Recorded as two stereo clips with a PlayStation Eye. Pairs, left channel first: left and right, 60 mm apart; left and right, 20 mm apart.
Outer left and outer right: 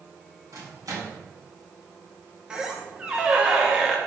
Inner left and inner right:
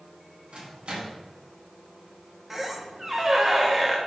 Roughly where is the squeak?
Centre.